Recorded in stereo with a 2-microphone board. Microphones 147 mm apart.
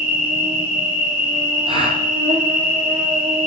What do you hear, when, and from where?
0.0 s an insect: 55° right (ahead or behind), 3 m
1.7 s a gasp: 40° right (ahead or behind), 1.8 m